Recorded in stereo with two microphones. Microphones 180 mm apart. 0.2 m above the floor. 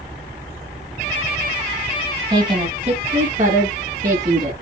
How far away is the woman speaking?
About 1.1 m.